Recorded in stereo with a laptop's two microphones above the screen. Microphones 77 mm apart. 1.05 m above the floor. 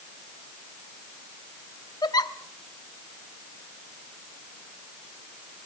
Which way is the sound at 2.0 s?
60° left (ahead or behind).